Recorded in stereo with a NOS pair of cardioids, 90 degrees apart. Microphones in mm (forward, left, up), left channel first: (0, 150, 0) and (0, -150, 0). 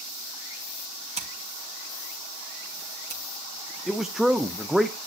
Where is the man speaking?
Straight ahead, 0.6 m.